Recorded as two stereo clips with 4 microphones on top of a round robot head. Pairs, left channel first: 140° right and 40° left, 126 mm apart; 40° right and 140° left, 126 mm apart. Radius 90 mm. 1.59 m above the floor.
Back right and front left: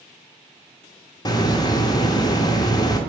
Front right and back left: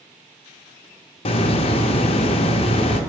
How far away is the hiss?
About 0.6 m.